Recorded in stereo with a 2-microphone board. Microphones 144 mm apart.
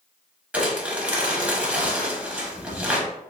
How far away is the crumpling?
About 0.8 m.